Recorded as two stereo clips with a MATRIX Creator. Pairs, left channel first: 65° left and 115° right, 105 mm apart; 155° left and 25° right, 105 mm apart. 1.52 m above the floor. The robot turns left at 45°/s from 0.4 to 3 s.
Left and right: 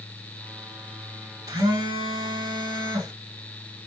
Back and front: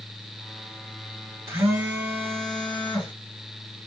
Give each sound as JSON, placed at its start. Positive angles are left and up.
{"t": 1.5, "sound": "a phone buzzing", "azimuth_deg": -75, "distance_m": 2.0}